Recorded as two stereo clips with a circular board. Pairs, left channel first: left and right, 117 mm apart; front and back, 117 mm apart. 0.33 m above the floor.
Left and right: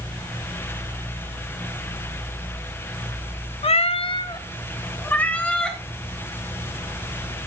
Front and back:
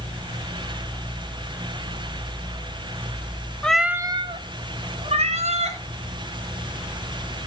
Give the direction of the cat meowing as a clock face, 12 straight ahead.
9 o'clock.